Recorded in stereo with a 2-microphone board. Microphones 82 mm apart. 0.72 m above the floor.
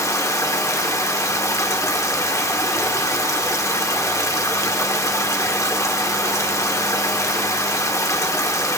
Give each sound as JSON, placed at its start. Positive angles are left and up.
{"t": 0.0, "sound": "running water", "side_deg": 40, "distance_m": 1.7}